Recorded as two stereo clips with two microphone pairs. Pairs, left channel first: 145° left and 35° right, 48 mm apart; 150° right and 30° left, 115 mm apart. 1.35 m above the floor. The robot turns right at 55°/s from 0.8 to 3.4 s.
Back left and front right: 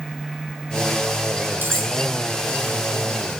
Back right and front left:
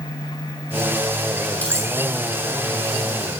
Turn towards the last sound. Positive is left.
turn(degrees=20)